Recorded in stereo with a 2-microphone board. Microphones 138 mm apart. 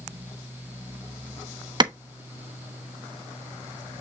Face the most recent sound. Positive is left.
turn(degrees=-30)  # may be behind; listen again after turning